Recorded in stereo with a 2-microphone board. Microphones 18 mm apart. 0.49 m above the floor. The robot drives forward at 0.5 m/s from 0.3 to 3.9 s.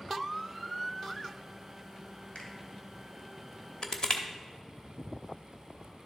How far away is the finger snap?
About 1.8 m.